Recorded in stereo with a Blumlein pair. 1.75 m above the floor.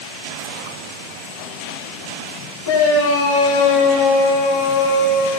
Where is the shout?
65° left, 7 m; by 5.4 s 60° left, 9.5 m.